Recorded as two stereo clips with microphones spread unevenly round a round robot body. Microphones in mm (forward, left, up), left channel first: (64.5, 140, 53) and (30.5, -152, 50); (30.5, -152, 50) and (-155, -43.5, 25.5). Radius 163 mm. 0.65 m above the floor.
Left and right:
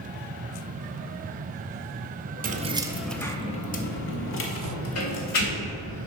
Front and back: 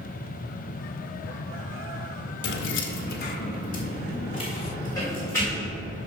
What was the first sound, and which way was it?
Keys jangling, 45° right.